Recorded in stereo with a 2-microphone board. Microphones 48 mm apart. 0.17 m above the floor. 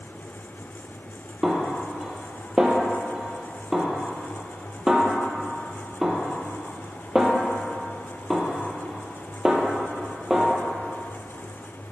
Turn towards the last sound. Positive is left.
turn(degrees=-10)  # may be behind; listen again after turning